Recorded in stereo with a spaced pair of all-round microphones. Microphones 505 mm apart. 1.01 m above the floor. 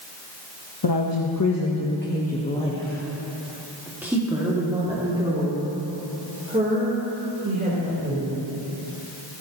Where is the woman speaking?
55° left (ahead or behind), 1.0 m; by 8.2 s 20° right (ahead or behind), 4 m.